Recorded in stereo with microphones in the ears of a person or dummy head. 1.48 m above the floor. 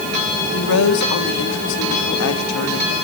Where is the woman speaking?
80° left, 2.5 m.